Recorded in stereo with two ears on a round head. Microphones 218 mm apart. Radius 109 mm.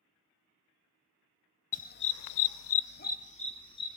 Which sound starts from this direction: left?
A dog barking, at 1.7 s.